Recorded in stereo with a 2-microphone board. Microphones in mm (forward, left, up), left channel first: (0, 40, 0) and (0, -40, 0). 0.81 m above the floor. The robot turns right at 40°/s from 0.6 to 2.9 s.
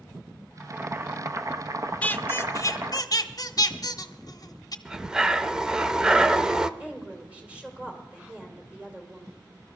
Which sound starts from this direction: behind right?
Boiling, at 0.6 s.